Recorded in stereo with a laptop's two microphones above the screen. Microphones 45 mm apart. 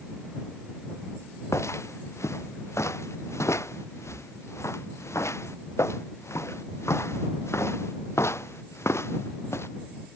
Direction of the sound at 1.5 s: 85° left.